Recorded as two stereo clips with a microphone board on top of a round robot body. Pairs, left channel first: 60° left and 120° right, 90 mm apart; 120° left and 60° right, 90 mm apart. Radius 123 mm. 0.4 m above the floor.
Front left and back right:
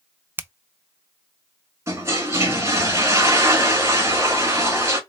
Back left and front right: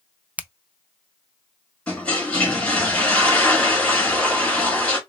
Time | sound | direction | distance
0.4 | a finger snap | 110° right | 0.5 m
1.9 | a toilet flushing | 165° right | 2 m